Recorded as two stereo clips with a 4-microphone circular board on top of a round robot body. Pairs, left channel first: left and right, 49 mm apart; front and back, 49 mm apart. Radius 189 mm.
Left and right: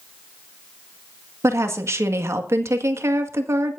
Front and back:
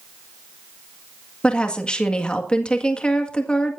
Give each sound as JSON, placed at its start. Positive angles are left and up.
{"t": 1.4, "sound": "a woman speaking", "azimuth_deg": -70, "distance_m": 1.9}